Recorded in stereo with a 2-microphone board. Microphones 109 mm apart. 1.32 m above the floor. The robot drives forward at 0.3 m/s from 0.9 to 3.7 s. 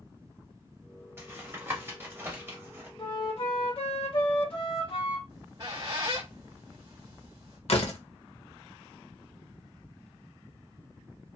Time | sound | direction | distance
1.2 | tapping | 20° right (ahead or behind) | 1.1 m
3.0 | a flute | 55° left (ahead or behind) | 0.9 m
5.3 | a squeak | 40° right (ahead or behind) | 1.0 m
7.7 | a door slam | 65° left (ahead or behind) | 0.7 m